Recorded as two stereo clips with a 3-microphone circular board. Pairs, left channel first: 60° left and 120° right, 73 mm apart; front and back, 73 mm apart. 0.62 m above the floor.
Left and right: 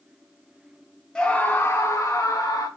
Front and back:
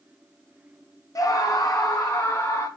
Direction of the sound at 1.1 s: 15° right.